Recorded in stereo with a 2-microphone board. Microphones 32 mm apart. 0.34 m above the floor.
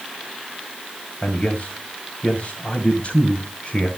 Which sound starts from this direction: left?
A man speaking, at 1.2 s.